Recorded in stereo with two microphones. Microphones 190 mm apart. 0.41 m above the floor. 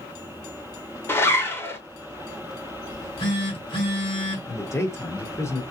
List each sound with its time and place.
1.1 s a zipper: 10° left (ahead or behind), 0.7 m
2.9 s a phone buzzing: 25° left (ahead or behind), 1.7 m
4.5 s a man speaking: 15° left (ahead or behind), 0.8 m